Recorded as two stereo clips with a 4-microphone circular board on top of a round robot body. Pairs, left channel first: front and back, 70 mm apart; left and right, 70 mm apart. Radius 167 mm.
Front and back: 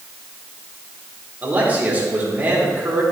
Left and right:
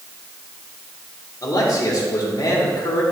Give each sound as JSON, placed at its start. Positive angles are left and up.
{"t": 1.4, "sound": "a man speaking", "azimuth_deg": 115, "distance_m": 3.0}